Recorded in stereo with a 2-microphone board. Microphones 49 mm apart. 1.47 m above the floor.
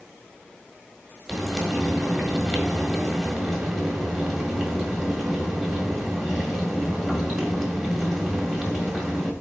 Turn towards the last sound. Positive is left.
turn(degrees=-5)  # may be behind; listen again after turning